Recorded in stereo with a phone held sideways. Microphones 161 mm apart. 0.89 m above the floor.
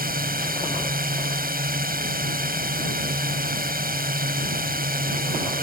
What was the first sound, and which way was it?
A drone, 65° right (ahead or behind).